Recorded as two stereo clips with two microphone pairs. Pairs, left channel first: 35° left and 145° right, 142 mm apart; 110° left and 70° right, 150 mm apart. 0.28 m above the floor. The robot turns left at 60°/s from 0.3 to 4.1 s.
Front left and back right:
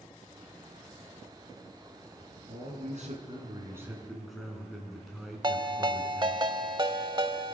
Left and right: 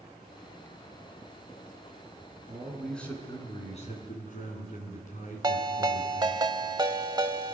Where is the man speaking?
135° right, 3 m; by 6.4 s 125° left, 3 m.